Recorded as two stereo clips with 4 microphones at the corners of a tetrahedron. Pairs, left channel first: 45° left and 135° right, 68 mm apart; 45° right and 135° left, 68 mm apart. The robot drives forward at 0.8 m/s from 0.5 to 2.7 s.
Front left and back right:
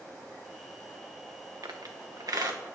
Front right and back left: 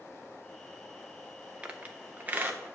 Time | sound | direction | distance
1.6 | a squeak | 150° right | 1.1 m